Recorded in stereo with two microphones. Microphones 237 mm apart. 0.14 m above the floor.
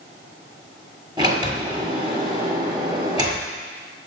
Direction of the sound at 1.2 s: 15° right (ahead or behind).